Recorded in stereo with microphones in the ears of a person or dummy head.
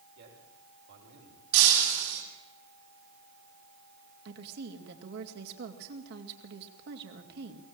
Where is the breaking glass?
80° right, 7 m.